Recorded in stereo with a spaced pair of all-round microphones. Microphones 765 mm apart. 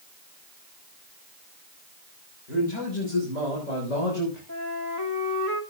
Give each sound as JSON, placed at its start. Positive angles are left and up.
{"t": 2.5, "sound": "a man speaking", "side_deg": 70, "distance_m": 6.5}
{"t": 4.5, "sound": "a flute", "side_deg": -25, "distance_m": 2.0}